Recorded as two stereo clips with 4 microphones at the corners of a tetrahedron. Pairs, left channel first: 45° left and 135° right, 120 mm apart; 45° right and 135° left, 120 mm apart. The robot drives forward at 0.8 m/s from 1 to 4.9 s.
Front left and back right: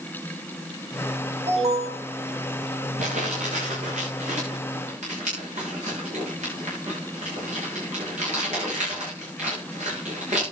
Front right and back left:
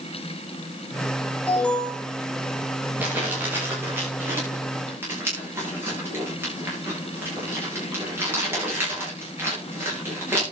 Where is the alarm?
120° right, 4 m; by 2.0 s 130° right, 4 m.